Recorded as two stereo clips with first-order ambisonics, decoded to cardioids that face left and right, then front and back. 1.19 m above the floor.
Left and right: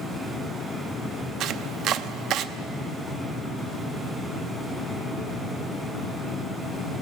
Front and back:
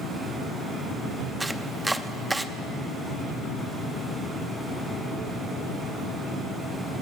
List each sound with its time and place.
1.4 s chopping: 100° right, 0.7 m